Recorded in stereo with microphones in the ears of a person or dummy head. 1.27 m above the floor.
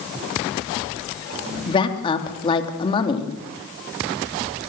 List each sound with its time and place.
1.7 s a woman speaking: 25° left (ahead or behind), 2.5 m